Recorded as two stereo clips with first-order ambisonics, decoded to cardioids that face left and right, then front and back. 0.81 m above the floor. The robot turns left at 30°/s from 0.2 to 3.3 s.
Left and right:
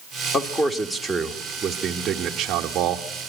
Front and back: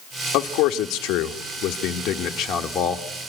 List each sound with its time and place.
0.3 s a man speaking: 25° left, 0.9 m; by 3.1 s 60° right, 0.9 m